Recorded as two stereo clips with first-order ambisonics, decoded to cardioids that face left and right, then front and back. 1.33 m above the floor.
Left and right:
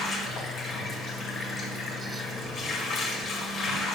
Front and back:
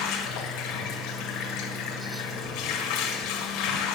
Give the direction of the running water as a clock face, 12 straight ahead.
11 o'clock.